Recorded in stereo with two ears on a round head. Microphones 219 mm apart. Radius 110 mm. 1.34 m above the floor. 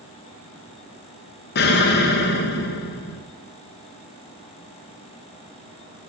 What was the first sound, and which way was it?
An explosion, 45° left (ahead or behind).